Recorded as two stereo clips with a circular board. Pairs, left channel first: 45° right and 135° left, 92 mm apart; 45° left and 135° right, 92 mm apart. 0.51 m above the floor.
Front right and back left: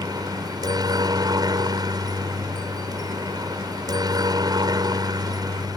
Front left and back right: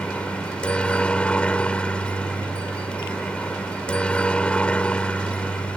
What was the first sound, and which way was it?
A helicopter, 120° left.